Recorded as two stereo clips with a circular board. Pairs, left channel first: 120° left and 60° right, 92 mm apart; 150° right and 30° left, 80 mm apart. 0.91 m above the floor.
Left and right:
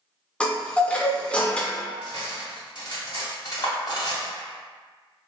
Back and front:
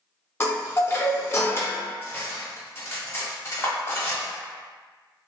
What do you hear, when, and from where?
0.4 s a chime: 170° right, 0.6 m
2.0 s cutlery clinking: 155° left, 1.0 m